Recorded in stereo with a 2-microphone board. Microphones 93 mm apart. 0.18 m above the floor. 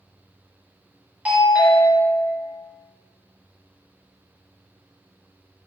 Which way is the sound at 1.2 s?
15° right (ahead or behind).